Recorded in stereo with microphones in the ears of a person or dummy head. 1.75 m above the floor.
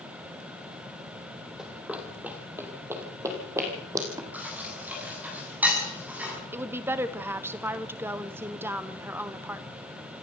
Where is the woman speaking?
10° right (ahead or behind), 0.7 m.